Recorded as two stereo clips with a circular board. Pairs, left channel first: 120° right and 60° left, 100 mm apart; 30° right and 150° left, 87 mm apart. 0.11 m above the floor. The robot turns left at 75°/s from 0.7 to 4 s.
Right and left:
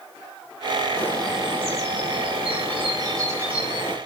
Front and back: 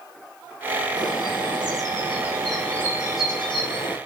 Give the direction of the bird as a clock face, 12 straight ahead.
6 o'clock.